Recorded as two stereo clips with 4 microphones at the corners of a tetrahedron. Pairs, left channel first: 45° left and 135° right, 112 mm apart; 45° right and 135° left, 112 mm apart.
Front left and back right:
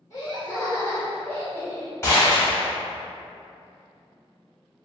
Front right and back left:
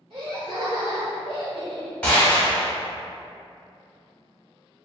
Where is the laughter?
105° left, 1.9 m; by 1.9 s 115° left, 1.0 m.